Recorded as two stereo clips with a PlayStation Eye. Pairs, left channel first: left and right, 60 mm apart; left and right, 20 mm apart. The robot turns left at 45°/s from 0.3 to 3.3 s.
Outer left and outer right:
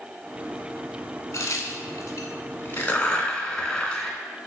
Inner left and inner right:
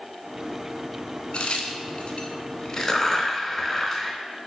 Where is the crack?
65° left (ahead or behind), 0.7 m; by 4.2 s 10° left (ahead or behind), 0.7 m.